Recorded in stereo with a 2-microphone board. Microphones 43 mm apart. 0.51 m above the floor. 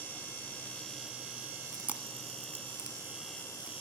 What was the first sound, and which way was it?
Chewing, 40° right (ahead or behind).